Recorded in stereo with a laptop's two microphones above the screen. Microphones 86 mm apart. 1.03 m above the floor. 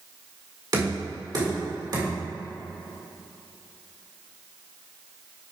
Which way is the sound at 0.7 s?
50° right (ahead or behind).